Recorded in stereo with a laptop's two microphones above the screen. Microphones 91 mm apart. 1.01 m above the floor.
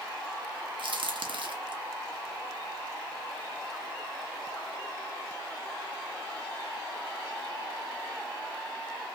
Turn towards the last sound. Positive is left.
turn(degrees=-70)  # may be behind; listen again after turning